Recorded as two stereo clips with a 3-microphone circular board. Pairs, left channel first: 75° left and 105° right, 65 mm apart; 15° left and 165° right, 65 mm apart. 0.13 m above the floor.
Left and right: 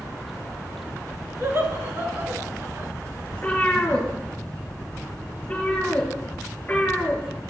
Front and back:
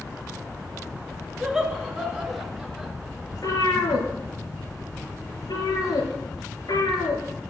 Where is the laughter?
90° right, 1.9 m.